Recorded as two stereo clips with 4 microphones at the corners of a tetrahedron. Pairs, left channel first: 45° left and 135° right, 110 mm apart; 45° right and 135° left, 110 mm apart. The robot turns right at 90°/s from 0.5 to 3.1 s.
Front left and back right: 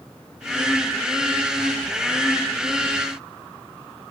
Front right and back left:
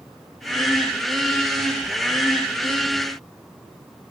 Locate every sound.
Only background noise.